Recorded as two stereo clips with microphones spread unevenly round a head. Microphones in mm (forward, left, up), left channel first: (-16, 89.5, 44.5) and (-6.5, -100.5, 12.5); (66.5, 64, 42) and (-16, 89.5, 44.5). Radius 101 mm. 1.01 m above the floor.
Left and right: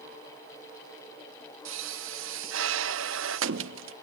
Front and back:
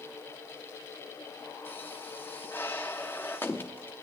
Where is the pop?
95° right, 0.6 m.